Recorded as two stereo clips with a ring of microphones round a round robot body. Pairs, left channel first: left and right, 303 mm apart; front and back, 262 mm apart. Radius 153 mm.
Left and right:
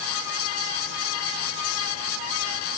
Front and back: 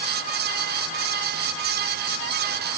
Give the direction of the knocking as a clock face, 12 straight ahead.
I don't hear knocking.